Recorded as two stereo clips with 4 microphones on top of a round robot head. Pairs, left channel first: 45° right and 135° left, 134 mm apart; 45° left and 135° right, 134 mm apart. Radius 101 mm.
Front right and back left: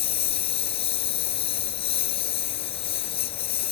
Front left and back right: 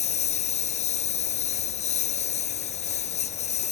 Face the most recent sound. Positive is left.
turn(degrees=5)